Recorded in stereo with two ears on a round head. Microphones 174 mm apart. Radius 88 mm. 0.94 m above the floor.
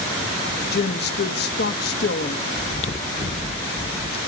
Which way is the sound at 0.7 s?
55° left (ahead or behind).